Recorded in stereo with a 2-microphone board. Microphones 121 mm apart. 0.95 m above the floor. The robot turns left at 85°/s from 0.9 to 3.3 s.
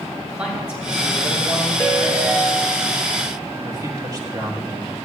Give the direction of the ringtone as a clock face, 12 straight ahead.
11 o'clock.